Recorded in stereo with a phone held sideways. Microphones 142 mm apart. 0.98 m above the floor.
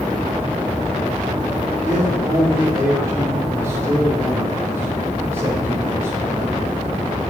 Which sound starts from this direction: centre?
A man speaking, at 1.8 s.